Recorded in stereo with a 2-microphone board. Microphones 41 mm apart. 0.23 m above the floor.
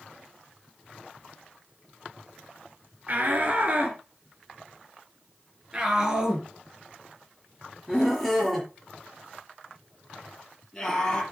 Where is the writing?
No writing in this recording.